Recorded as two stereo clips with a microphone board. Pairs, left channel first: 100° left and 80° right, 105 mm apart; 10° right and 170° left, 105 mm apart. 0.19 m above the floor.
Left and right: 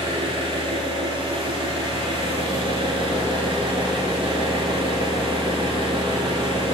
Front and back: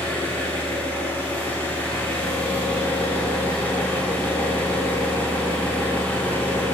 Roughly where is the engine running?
Right.